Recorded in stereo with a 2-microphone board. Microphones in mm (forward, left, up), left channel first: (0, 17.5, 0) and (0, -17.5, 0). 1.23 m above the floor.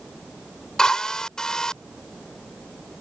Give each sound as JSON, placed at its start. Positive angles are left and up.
{"t": 0.8, "sound": "a drill", "side_deg": 20}